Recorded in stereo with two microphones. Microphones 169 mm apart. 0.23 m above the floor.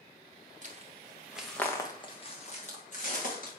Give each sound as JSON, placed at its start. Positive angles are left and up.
{"t": 0.6, "sound": "footsteps", "side_deg": -50, "distance_m": 1.4}